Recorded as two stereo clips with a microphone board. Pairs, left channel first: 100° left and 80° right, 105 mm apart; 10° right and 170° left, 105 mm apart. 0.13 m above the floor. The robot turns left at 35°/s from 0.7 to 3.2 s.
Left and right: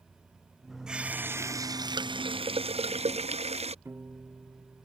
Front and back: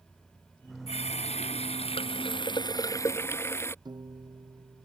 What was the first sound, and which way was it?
A running tap, 5° left.